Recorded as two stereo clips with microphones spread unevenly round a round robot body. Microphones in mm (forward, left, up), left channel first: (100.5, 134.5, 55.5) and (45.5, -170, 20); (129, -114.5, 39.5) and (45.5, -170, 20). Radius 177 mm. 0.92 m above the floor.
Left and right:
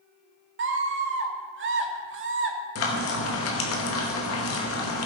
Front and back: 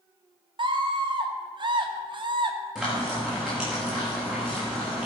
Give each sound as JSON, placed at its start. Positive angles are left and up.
{"t": 0.6, "sound": "a scream", "azimuth_deg": -145, "distance_m": 1.2}
{"t": 2.8, "sound": "frying", "azimuth_deg": 130, "distance_m": 1.2}